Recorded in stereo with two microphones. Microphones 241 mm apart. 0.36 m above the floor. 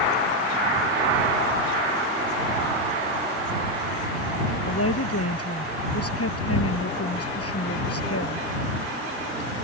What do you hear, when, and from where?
4.7 s a woman speaking: 75° left (ahead or behind)